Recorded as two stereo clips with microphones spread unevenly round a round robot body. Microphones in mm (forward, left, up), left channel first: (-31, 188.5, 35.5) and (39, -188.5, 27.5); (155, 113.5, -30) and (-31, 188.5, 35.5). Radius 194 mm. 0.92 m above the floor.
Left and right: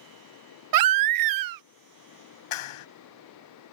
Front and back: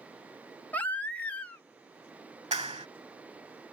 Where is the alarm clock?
No alarm clock in this recording.